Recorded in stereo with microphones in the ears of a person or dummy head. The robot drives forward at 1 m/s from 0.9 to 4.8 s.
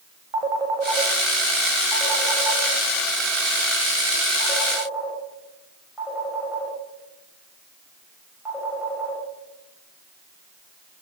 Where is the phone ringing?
25° right (ahead or behind), 1.8 m; by 9.2 s 10° right (ahead or behind), 5.5 m.